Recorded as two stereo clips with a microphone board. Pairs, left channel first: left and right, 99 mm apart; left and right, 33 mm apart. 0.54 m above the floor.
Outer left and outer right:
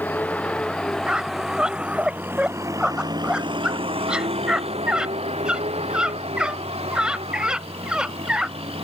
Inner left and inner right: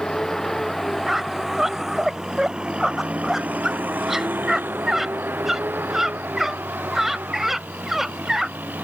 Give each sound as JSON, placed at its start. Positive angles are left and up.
{"t": 0.0, "sound": "a vehicle", "side_deg": 15}
{"t": 1.1, "sound": "a squeak", "side_deg": -10}